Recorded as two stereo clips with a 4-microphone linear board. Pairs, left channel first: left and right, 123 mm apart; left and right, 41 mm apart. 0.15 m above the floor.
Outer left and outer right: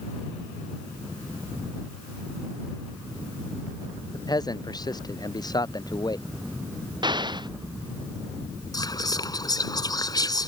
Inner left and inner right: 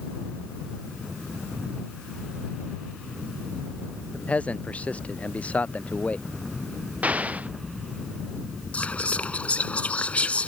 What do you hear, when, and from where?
4.1 s a man speaking: 35° left (ahead or behind)
7.0 s an explosion: 35° right (ahead or behind)
8.7 s whispering: 35° left (ahead or behind)